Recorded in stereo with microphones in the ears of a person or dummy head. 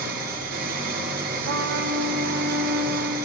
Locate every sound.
0.0 s an engine running: 45° right (ahead or behind), 3 m
1.4 s a trumpet: 60° right (ahead or behind), 1.3 m